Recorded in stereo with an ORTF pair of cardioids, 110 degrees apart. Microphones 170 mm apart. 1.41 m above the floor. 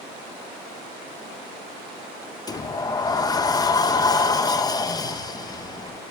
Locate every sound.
2.5 s a sliding door: 25° left, 1.2 m